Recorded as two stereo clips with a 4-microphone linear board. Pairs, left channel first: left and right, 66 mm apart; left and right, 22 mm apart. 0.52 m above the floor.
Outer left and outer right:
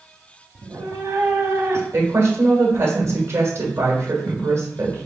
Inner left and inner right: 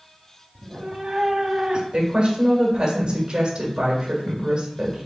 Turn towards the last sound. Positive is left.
turn(degrees=-45)  # may be behind; listen again after turning